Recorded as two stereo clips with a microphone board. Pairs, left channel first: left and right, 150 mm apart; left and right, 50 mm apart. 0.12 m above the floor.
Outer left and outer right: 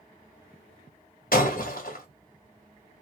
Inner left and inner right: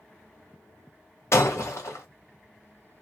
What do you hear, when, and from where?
1.3 s breaking glass: 70° left (ahead or behind), 1.7 m